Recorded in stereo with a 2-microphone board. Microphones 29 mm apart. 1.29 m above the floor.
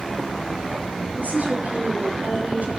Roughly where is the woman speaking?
Right.